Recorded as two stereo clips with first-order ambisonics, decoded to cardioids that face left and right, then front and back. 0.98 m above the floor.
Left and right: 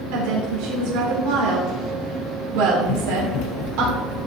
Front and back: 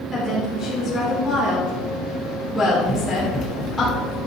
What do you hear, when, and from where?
0.1 s a woman speaking: 80° right, 3 m
2.8 s running footsteps: 85° left, 1.5 m; by 4.3 s 50° left, 1.9 m